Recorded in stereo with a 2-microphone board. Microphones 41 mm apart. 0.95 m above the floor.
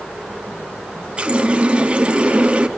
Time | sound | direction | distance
1.2 | a running tap | 25° right (ahead or behind) | 0.9 m